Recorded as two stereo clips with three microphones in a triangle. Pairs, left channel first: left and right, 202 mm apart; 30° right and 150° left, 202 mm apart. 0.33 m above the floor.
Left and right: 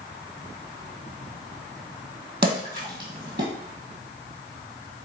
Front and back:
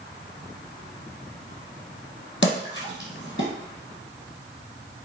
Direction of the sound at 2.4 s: 55° right.